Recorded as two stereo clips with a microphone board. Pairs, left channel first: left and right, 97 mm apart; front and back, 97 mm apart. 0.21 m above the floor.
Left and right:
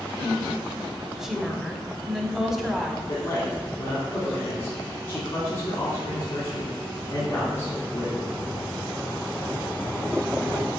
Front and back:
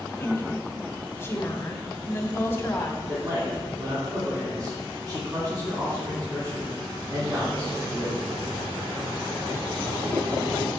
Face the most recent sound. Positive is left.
turn(degrees=145)